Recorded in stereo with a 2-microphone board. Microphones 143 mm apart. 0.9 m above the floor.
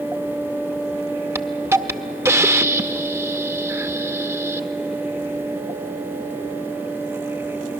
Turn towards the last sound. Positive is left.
turn(degrees=-20)  # may be behind; listen again after turning